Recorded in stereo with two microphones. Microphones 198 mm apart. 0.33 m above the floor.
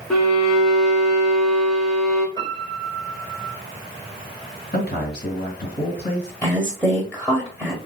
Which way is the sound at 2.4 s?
20° left (ahead or behind).